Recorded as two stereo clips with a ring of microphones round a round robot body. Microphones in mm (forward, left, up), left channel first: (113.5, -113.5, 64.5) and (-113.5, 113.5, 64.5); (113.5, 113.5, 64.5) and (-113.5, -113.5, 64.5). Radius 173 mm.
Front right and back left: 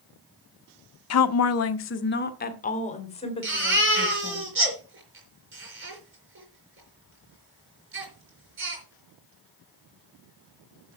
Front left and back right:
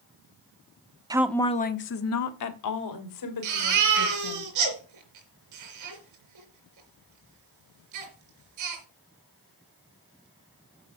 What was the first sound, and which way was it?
A woman speaking, 60° right.